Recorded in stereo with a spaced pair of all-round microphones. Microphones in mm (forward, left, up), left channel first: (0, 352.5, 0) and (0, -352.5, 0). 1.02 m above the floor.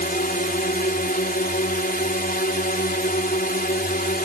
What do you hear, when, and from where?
0.0 s a drone: 10° left (ahead or behind)